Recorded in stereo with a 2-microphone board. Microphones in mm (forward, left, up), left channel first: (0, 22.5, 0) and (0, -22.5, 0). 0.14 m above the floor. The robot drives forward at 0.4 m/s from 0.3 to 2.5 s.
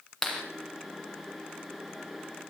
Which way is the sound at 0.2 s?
5° left (ahead or behind).